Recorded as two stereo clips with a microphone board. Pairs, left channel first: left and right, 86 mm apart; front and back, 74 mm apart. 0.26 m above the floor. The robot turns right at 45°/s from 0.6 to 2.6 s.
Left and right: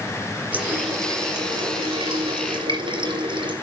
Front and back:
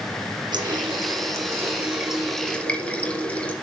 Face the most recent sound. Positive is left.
turn(degrees=-75)